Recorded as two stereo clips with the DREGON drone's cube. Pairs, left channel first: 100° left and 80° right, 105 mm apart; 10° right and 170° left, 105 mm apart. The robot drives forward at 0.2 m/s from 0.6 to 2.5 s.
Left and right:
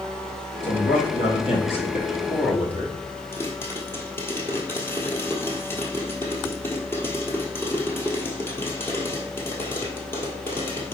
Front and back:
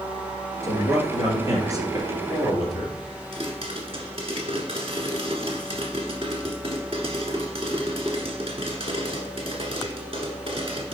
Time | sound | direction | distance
0.6 | a man speaking | 110° left | 2.5 m
3.3 | a pop | 165° left | 1.7 m